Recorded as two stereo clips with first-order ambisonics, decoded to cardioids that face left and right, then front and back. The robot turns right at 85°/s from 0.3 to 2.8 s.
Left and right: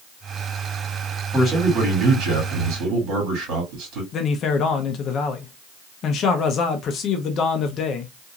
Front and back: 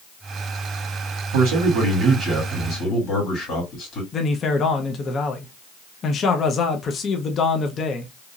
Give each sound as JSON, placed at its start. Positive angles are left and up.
{"t": 1.3, "sound": "a man speaking", "azimuth_deg": 180, "distance_m": 1.9}
{"t": 4.1, "sound": "a man speaking", "azimuth_deg": 55, "distance_m": 0.5}